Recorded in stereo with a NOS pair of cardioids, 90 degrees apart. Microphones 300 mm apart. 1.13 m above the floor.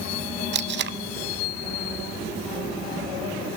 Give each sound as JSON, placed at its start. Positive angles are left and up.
{"t": 0.5, "sound": "tape being pulled", "azimuth_deg": -40, "distance_m": 0.7}